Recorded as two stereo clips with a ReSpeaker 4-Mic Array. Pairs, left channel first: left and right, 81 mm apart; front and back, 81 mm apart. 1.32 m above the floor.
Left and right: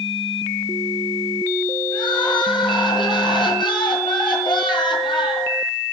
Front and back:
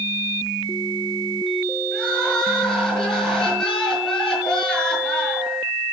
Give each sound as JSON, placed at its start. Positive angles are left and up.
{"t": 1.9, "sound": "crying", "azimuth_deg": 80, "distance_m": 7.0}